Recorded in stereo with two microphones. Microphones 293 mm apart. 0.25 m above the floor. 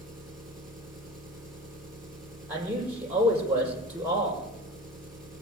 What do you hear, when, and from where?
0.0 s an engine running: centre (ahead or behind), 4.5 m
2.5 s a man speaking: 5° right (ahead or behind), 7 m